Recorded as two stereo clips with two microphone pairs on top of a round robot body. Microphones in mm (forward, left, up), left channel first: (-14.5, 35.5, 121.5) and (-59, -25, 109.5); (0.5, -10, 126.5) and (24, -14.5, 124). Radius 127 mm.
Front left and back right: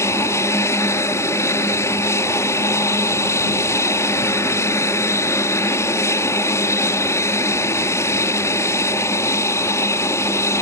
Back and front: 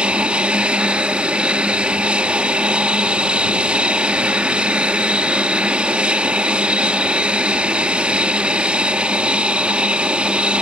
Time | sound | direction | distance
0.0 | an aircraft | 5° left | ?